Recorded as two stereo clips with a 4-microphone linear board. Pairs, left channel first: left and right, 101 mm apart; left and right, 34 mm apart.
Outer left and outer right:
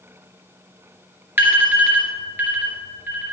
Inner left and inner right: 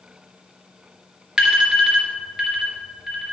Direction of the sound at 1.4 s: 20° right (ahead or behind).